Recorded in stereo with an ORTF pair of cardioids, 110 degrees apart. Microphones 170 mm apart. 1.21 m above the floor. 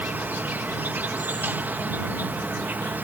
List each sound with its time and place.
0.0 s an insect: 10° right